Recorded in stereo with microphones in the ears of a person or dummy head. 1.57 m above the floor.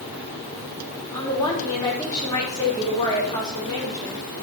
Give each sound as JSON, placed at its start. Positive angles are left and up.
{"t": 1.1, "sound": "a woman speaking", "side_deg": 15, "distance_m": 4.0}